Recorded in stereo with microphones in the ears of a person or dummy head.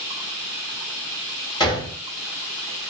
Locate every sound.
1.6 s a gunshot: 20° left (ahead or behind), 0.8 m